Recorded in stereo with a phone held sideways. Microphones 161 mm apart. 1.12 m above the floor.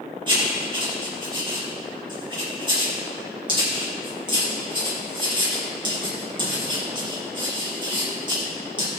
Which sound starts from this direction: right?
Writing, at 0.3 s.